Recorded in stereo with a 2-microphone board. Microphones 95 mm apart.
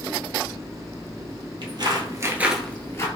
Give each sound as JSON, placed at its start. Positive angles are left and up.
{"t": 1.6, "sound": "footsteps", "side_deg": -55, "distance_m": 0.9}